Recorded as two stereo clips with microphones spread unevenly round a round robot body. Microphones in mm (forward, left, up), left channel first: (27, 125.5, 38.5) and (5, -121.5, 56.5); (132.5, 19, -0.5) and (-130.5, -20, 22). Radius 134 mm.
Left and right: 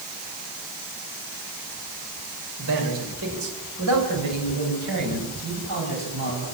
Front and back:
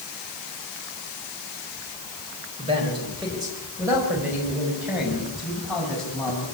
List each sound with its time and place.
2.6 s a man speaking: 100° right, 5 m; by 6.4 s 80° right, 7.5 m